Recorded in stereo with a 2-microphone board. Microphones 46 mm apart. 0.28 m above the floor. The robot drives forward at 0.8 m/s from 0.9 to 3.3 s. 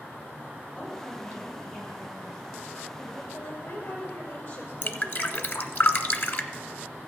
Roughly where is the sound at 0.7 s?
Left.